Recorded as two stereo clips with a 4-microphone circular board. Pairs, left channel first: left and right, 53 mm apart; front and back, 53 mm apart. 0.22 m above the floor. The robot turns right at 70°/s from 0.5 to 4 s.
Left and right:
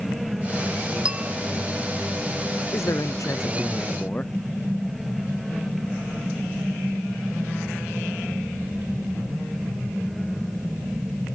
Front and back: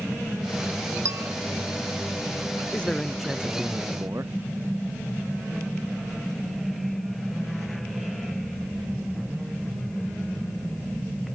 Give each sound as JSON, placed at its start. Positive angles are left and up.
{"t": 1.1, "sound": "a bell", "azimuth_deg": -165}
{"t": 2.7, "sound": "a man speaking", "azimuth_deg": 65}